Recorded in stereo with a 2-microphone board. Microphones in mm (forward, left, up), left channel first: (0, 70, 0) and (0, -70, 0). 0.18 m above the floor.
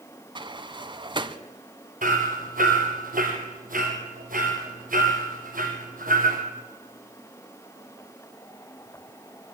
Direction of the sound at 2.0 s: 75° right (ahead or behind).